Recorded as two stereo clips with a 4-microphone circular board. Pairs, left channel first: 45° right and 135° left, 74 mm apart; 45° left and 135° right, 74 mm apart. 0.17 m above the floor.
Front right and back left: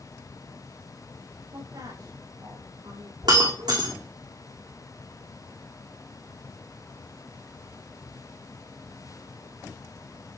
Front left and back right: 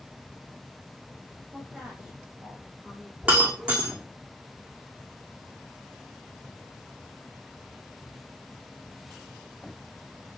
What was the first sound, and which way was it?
A woman speaking, 150° left.